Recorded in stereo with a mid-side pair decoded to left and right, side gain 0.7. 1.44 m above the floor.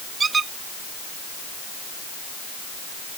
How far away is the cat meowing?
I don't hear a cat meowing.